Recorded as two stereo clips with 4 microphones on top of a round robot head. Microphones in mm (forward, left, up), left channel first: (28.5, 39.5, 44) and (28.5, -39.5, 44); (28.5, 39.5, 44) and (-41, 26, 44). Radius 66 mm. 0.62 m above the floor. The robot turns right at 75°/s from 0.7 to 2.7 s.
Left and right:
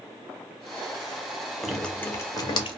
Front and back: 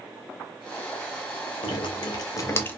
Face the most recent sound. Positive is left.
turn(degrees=75)